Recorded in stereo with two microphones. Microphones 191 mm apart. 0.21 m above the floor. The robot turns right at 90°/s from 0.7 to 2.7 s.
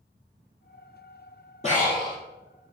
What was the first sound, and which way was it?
Breathing, 35° left.